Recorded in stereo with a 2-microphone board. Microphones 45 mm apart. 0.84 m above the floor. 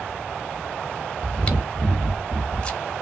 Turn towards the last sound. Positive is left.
turn(degrees=25)  # may be behind; listen again after turning